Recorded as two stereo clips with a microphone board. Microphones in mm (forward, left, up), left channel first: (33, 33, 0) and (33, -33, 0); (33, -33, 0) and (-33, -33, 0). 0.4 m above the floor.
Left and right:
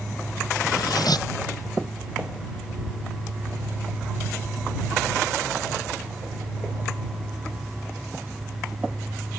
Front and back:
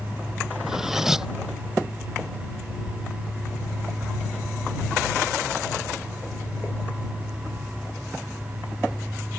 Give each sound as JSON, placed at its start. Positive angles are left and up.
{"t": 0.6, "sound": "cutlery clinking", "azimuth_deg": 95}